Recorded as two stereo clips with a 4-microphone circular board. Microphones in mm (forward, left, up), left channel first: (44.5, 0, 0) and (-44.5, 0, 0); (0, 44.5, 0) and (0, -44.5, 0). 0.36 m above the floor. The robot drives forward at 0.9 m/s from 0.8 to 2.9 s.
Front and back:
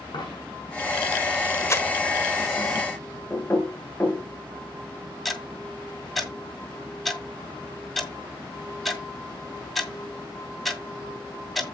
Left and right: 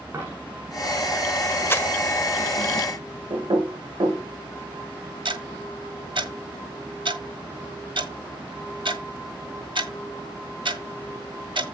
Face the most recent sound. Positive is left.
turn(degrees=-90)